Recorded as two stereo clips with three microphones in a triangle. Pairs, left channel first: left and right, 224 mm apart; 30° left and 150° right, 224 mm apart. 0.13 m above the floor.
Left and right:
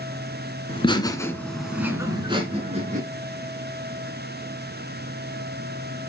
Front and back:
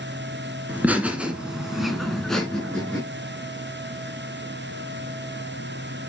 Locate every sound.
0.7 s laughter: 135° left, 2 m; by 3.0 s 55° right, 2.5 m